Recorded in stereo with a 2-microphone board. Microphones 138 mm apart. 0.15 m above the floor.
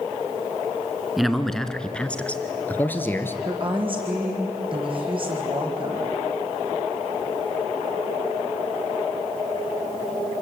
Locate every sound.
1.2 s a man speaking: centre (ahead or behind), 1.7 m; by 3.4 s 15° left (ahead or behind), 2.5 m
3.5 s a woman speaking: 40° right (ahead or behind), 6.5 m